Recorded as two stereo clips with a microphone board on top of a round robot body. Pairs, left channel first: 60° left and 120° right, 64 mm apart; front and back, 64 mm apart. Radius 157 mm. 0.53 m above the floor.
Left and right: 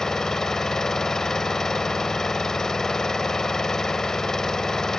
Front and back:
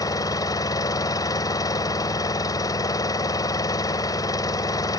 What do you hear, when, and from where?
0.0 s an engine running: 20° right